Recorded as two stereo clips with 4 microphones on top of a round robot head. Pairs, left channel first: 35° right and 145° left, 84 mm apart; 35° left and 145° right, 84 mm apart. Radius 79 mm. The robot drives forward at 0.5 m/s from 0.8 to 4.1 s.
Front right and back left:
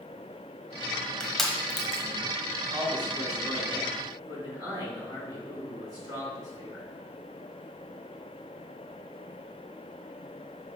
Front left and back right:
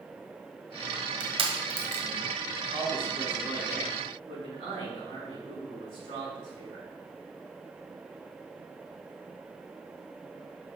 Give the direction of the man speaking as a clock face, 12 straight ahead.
6 o'clock.